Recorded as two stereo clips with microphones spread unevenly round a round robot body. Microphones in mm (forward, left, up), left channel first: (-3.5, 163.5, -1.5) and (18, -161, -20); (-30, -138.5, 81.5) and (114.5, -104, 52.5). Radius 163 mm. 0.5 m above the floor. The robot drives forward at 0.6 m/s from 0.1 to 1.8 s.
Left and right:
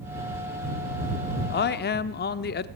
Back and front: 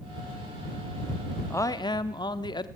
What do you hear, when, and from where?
1.5 s a man speaking: 110° left, 0.7 m; by 2.7 s 135° left, 0.8 m